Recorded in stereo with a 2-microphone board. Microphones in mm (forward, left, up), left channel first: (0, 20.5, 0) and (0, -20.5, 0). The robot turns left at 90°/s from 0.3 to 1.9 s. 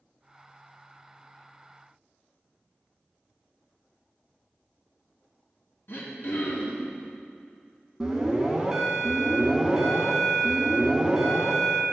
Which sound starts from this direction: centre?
An alarm, at 8.0 s.